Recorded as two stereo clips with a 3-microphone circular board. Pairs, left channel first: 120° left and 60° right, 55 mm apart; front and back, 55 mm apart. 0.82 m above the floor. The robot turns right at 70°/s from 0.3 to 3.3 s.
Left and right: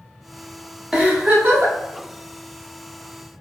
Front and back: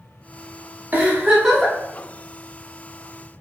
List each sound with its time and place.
0.9 s a giggle: 135° right, 0.9 m; by 1.8 s 80° right, 0.9 m